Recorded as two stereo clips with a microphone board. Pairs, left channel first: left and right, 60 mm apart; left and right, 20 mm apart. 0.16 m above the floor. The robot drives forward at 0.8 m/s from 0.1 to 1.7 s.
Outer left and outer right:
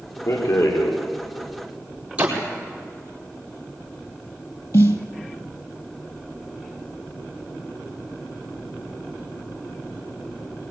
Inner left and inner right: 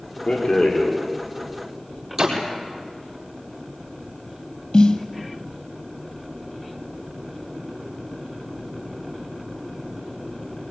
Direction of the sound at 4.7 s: 65° left (ahead or behind).